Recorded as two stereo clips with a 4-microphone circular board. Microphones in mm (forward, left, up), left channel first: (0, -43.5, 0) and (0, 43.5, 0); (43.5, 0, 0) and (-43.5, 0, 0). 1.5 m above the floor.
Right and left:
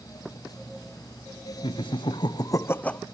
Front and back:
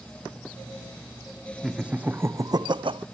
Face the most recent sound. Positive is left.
turn(degrees=-170)